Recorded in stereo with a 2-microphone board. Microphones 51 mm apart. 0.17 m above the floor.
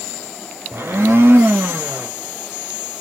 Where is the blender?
50° right (ahead or behind), 0.8 m.